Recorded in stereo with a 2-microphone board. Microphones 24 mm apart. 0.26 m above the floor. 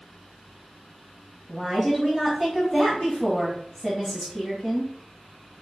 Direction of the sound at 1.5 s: 5° right (ahead or behind).